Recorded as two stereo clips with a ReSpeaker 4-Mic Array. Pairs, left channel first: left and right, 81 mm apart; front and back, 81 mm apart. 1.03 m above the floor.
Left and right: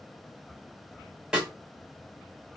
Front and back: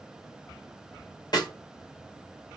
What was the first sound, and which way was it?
A snare drum, 15° right.